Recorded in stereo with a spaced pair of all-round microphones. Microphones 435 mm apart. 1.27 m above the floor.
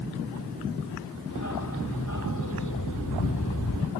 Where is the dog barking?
45° left (ahead or behind).